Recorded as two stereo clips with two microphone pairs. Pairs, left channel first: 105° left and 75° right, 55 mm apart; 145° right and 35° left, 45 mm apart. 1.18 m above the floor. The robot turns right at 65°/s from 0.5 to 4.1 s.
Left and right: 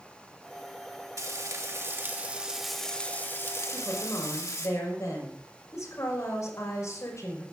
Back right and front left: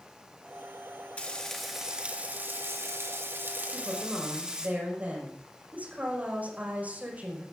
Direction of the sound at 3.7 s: 65° left.